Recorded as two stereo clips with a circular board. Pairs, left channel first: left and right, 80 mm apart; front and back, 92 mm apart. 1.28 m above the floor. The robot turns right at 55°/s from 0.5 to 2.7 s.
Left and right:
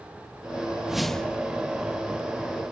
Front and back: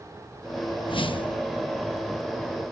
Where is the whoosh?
10° right; by 1.4 s 20° left.